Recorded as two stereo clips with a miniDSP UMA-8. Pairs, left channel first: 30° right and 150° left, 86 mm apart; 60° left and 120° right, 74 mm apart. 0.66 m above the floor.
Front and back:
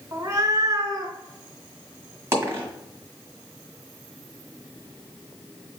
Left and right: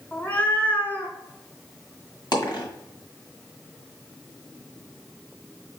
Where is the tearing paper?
I don't hear tearing paper.